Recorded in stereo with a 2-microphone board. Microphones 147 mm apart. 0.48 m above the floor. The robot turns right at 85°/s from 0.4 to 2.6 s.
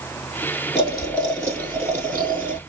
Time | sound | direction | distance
0.8 | boiling | 135° left | 1.3 m